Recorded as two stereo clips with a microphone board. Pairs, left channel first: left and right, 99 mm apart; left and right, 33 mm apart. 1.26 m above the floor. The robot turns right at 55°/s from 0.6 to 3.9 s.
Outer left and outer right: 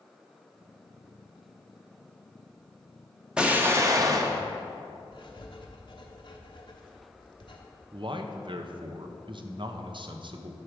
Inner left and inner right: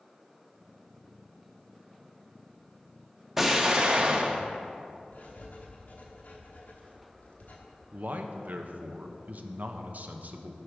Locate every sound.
3.4 s an explosion: 10° right (ahead or behind), 0.8 m; by 4.4 s 35° right (ahead or behind), 0.8 m
5.1 s writing: 50° left (ahead or behind), 1.0 m
7.9 s a man speaking: 55° right (ahead or behind), 0.7 m